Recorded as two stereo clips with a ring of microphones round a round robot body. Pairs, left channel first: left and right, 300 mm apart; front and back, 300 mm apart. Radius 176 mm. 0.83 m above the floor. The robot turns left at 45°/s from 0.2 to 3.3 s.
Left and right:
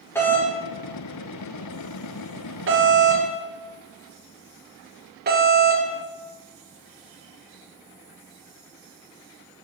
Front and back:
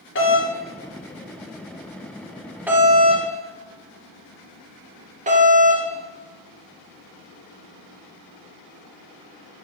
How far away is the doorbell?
About 1.3 m.